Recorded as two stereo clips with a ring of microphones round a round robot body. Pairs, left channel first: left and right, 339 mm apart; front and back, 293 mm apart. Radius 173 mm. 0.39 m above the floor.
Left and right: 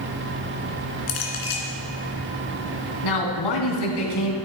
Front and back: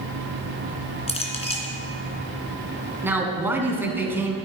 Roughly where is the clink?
Left.